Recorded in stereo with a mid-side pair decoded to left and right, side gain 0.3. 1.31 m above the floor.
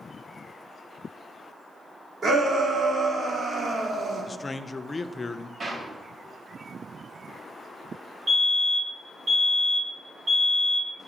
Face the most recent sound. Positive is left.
turn(degrees=-55)